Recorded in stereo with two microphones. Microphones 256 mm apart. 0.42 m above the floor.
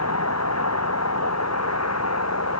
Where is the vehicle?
85° left; by 2.6 s 80° left.